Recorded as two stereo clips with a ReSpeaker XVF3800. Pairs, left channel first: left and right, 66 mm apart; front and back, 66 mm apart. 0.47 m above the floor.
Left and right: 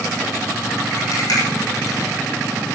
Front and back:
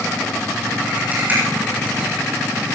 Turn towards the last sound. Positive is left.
turn(degrees=115)